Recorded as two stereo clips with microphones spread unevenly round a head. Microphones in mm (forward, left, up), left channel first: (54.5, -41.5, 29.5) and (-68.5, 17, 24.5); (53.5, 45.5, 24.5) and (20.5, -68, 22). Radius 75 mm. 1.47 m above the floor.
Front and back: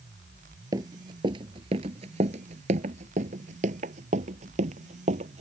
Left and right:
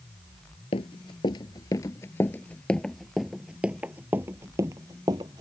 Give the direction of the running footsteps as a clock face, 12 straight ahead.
9 o'clock.